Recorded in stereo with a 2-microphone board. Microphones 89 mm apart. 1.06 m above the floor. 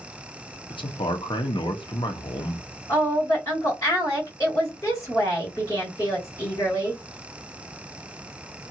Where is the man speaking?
70° left (ahead or behind), 0.7 m.